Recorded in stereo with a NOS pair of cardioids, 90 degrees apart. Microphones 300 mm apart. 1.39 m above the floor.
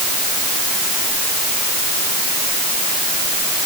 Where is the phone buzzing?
No phone buzzing in this recording.